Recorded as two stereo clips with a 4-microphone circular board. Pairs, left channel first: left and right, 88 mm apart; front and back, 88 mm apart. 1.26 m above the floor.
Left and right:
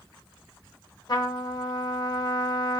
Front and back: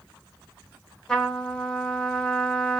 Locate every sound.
1.1 s a trumpet: 85° left, 1.2 m